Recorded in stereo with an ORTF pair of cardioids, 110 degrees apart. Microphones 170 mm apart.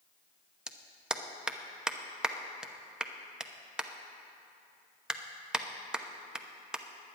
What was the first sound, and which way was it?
A clap, 5° right.